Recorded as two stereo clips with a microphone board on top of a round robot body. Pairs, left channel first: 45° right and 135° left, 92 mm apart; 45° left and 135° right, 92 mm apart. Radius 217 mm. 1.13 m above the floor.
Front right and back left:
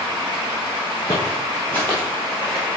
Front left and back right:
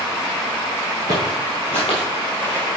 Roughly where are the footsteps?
Ahead.